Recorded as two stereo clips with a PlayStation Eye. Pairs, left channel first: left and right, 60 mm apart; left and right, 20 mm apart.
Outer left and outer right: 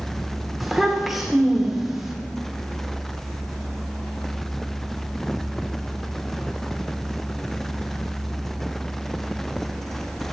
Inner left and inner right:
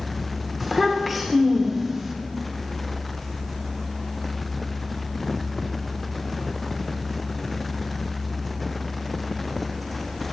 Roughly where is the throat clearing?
No throat clearing in this recording.